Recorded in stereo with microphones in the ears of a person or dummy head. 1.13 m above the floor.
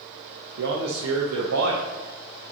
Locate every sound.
0.6 s a man speaking: 80° right, 0.9 m